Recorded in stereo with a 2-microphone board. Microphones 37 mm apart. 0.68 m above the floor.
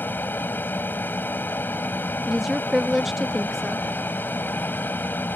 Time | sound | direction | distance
0.0 | an aircraft | 70° left (ahead or behind) | ?
2.2 | a woman speaking | 5° right (ahead or behind) | ?